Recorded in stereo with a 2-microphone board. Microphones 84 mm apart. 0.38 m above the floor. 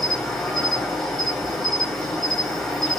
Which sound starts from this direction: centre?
An insect, at 0.0 s.